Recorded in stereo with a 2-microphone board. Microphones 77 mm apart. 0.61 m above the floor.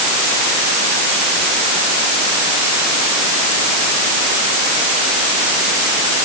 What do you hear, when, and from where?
Only background noise.